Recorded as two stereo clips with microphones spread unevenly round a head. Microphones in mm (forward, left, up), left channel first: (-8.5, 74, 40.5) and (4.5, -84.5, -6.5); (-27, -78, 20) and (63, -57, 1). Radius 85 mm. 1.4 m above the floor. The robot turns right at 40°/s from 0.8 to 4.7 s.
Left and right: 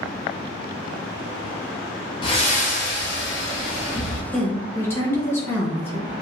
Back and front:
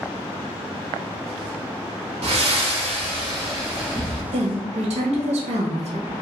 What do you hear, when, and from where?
2.2 s breathing: 30° left, 0.7 m; by 4.2 s 110° left, 0.7 m
4.3 s a woman speaking: 10° left, 0.7 m; by 6.1 s 25° left, 0.7 m